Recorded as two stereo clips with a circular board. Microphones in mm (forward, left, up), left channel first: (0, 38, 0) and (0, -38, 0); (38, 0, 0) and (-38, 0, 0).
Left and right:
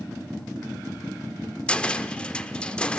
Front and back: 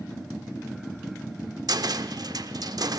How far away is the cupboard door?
About 0.8 m.